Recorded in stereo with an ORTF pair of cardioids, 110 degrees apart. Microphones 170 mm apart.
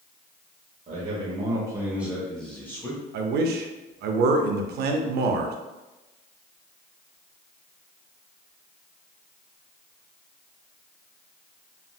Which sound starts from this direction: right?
A man speaking, at 3.1 s.